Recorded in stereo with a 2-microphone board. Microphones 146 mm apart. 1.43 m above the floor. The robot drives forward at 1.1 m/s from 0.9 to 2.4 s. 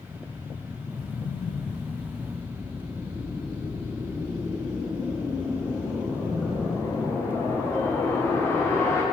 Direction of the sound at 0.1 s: 35° left (ahead or behind).